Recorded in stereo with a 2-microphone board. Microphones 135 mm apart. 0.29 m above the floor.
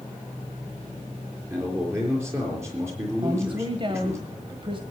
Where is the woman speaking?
40° right (ahead or behind), 1.4 m.